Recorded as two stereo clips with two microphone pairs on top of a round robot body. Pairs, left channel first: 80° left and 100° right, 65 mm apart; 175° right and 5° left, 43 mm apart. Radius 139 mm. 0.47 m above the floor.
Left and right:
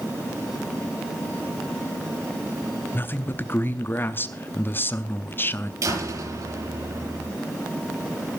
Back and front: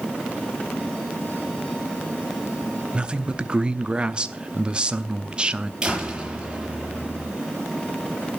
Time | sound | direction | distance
2.9 | a man speaking | 40° left | 0.9 m
5.8 | a door slam | 65° right | 8 m